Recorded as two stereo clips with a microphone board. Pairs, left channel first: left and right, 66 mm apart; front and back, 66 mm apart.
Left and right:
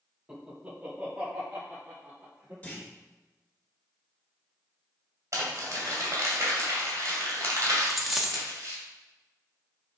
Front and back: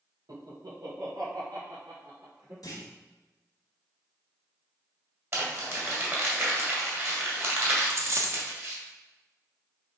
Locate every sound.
0.3 s laughter: 170° right, 1.5 m; by 2.5 s 155° right, 3.5 m
2.6 s a clunk: 25° left, 1.5 m
5.3 s crumpling: 130° right, 2.5 m
7.8 s a dropped coin: straight behind, 0.8 m